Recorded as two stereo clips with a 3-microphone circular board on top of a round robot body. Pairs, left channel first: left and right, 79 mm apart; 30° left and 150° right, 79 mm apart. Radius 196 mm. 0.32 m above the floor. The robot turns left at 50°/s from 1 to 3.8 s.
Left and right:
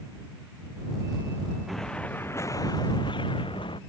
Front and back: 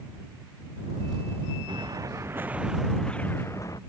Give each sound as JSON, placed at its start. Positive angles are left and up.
{"t": 1.7, "sound": "an explosion", "azimuth_deg": 180}